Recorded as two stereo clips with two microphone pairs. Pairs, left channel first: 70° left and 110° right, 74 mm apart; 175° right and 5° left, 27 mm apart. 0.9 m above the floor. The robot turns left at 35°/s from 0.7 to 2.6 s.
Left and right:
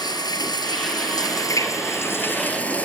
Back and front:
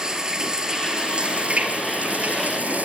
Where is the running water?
70° left, 3 m; by 2.9 s straight ahead, 3 m.